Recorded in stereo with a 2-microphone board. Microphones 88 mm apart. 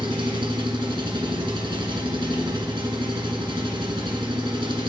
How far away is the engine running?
About 1.3 m.